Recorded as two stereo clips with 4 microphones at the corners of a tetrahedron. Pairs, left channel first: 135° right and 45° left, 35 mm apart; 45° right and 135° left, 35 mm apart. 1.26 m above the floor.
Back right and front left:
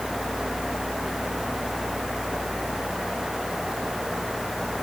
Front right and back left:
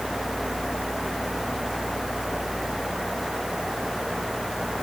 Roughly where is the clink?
I don't hear a clink.